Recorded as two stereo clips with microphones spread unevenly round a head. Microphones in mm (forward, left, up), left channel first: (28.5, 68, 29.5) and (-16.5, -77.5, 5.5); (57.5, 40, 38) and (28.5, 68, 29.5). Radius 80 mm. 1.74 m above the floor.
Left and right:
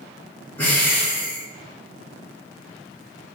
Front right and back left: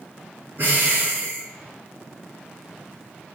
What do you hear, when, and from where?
0.6 s breathing: 130° left, 1.3 m